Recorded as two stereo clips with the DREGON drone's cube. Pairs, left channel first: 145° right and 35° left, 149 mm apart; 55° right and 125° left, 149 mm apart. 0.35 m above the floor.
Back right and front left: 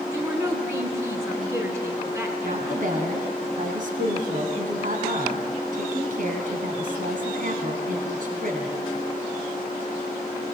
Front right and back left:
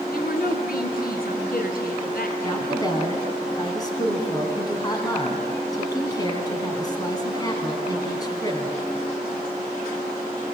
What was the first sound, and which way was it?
A woman speaking, 40° right.